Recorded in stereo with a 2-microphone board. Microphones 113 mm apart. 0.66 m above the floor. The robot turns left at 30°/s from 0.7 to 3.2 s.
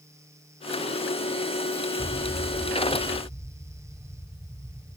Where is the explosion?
5° left (ahead or behind), 0.8 m; by 5.0 s 15° right (ahead or behind), 0.8 m.